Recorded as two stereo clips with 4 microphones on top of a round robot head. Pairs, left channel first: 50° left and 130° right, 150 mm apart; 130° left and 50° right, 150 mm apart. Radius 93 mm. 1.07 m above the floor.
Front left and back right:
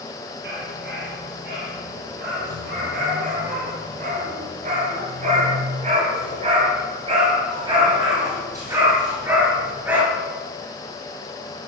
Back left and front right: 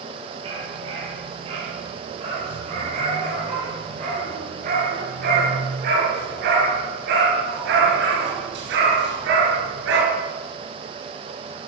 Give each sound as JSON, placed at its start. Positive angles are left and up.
{"t": 0.4, "sound": "a dog barking", "azimuth_deg": -105, "distance_m": 9.0}